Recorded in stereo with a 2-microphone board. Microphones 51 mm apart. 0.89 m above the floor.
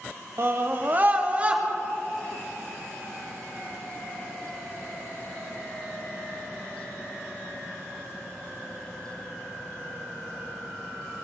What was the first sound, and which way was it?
A scream, 50° right (ahead or behind).